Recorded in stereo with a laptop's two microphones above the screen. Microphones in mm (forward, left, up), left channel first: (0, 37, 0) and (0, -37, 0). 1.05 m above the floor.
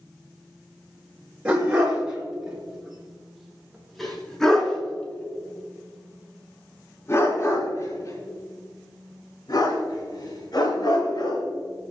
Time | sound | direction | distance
1.4 | a dog barking | 15° right (ahead or behind) | 5.5 m